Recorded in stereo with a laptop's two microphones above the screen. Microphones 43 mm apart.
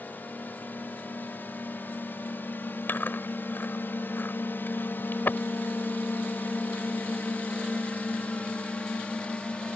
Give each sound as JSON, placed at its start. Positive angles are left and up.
{"t": 0.0, "sound": "a drone", "side_deg": 45}
{"t": 2.9, "sound": "chewing", "side_deg": 50}